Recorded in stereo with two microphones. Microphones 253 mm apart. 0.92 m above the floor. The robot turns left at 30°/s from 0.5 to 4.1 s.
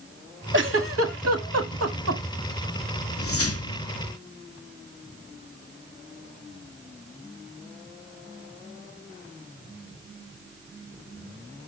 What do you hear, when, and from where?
0.5 s a giggle: 50° right (ahead or behind), 1.0 m; by 2.2 s 70° right (ahead or behind), 1.0 m
3.2 s a whoosh: 60° left (ahead or behind), 0.6 m; by 3.9 s 75° left (ahead or behind), 0.6 m